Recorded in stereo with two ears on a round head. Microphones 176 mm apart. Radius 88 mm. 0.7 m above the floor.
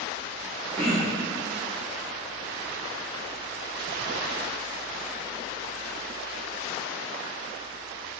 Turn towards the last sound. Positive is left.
turn(degrees=5)  # may be behind; listen again after turning